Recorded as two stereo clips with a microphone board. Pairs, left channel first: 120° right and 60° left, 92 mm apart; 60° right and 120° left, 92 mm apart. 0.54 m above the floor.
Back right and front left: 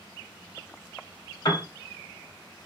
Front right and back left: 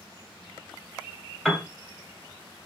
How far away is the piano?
About 1.0 m.